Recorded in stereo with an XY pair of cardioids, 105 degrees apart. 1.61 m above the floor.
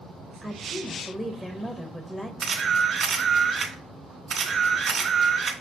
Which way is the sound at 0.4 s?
5° left.